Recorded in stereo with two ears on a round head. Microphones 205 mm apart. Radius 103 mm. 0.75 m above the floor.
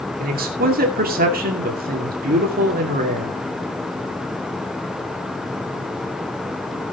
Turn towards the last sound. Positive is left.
turn(degrees=-40)  # may be behind; listen again after turning